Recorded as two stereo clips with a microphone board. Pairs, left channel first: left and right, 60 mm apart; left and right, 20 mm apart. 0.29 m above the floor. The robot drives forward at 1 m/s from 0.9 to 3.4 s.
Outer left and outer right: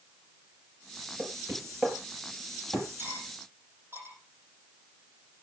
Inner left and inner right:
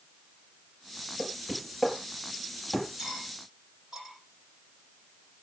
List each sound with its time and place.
1.2 s knocking: 35° right (ahead or behind), 6 m; by 2.9 s 30° right (ahead or behind), 7 m
3.0 s cutlery clinking: 40° right (ahead or behind), 8 m; by 4.2 s 35° right (ahead or behind), 8 m